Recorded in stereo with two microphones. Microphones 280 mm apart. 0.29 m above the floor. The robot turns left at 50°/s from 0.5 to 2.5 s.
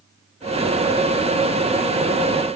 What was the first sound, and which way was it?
Only background noise.